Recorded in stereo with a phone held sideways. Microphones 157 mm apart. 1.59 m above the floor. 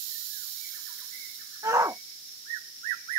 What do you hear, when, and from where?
1.6 s a shout: 20° right (ahead or behind)